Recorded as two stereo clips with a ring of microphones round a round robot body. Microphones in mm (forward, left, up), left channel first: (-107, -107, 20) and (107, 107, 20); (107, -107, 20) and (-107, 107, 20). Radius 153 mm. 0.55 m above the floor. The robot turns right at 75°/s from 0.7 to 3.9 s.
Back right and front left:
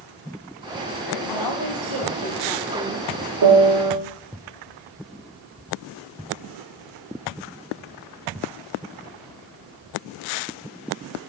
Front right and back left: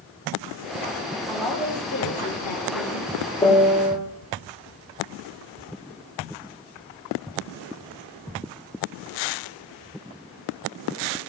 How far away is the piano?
About 1.6 m.